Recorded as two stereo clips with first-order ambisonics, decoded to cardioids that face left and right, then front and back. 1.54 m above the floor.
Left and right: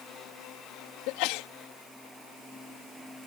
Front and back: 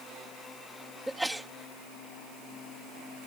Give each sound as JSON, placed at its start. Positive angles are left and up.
{"t": 1.1, "sound": "a sneeze", "azimuth_deg": 95}